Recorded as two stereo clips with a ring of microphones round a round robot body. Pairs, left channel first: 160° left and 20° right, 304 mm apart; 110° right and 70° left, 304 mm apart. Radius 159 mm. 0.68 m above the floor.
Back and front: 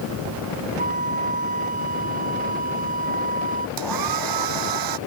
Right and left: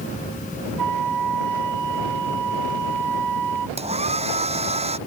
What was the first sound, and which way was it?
A flute, 45° left.